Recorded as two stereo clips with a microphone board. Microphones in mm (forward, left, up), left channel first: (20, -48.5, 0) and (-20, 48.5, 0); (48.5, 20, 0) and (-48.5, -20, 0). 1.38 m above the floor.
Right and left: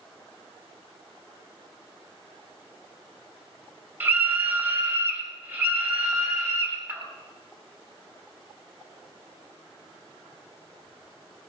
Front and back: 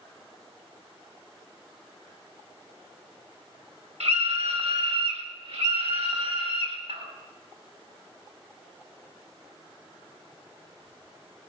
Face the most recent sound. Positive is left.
turn(degrees=-175)